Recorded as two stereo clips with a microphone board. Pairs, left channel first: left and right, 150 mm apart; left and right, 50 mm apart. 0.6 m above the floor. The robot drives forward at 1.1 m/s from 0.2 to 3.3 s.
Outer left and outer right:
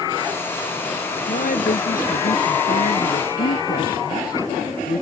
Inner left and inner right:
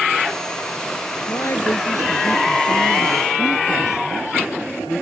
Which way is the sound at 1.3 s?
60° left (ahead or behind).